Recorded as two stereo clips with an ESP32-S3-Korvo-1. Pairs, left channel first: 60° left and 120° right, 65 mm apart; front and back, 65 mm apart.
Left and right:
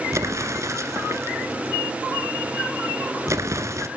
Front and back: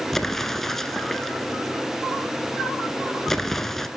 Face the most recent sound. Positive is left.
turn(degrees=-85)